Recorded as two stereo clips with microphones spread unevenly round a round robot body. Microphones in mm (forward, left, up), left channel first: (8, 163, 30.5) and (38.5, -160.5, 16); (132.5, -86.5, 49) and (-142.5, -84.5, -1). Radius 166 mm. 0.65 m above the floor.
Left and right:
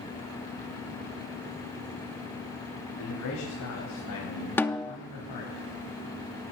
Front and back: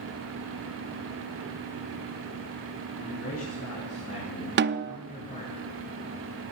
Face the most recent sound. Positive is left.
turn(degrees=180)